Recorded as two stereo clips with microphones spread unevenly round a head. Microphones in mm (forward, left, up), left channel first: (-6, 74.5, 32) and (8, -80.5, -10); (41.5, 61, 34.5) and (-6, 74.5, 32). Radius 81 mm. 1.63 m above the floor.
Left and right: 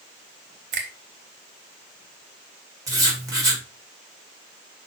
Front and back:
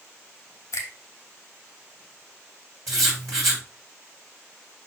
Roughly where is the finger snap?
Ahead right.